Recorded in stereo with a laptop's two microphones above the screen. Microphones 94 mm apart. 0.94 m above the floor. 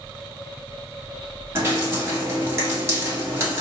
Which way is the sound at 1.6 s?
25° right (ahead or behind).